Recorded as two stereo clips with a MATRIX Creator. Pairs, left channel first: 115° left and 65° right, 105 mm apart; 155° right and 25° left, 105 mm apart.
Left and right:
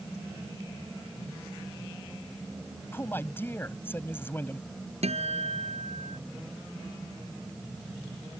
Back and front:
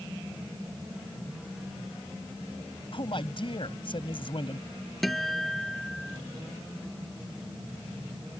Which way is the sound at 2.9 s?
Straight behind.